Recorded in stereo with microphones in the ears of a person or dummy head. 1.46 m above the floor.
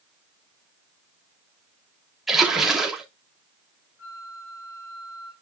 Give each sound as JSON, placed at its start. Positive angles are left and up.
{"t": 2.3, "sound": "a splash", "side_deg": -5, "distance_m": 3.0}
{"t": 4.0, "sound": "a flute", "side_deg": 85, "distance_m": 6.0}